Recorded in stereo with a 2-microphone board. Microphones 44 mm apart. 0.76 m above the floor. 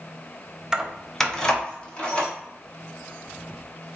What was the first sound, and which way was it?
Keys jangling, 15° right (ahead or behind).